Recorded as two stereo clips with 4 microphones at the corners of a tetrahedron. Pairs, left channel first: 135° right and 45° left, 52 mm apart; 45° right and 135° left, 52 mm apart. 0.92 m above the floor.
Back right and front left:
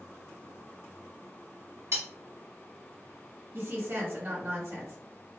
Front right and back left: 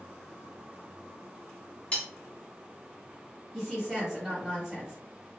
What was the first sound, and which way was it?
Cutlery clinking, 20° left.